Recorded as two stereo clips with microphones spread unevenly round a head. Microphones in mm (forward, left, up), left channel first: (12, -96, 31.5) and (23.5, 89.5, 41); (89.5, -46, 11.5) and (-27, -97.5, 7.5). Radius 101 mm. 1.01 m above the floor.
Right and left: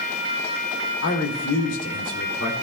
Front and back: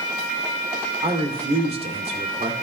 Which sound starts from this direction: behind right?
A man speaking, at 1.0 s.